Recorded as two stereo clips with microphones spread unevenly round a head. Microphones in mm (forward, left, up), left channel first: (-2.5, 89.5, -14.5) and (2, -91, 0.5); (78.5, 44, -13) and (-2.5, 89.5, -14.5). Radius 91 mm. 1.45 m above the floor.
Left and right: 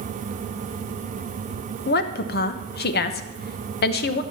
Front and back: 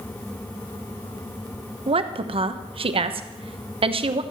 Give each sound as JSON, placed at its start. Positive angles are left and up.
{"t": 1.9, "sound": "a woman speaking", "azimuth_deg": 130, "distance_m": 1.1}